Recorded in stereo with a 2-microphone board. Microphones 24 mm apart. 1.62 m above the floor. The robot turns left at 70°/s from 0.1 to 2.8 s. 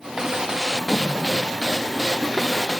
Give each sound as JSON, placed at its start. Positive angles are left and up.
{"t": 0.7, "sound": "a splash", "azimuth_deg": 15, "distance_m": 1.1}